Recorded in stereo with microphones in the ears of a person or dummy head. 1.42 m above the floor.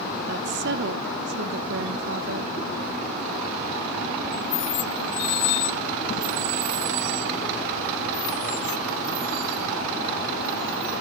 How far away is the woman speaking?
About 0.9 m.